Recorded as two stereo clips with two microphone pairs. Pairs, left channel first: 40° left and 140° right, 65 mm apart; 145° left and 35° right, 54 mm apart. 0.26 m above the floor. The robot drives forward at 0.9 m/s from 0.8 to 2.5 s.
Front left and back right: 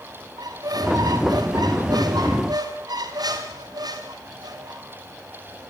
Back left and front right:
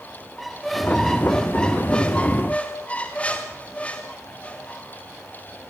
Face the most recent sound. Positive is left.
turn(degrees=-150)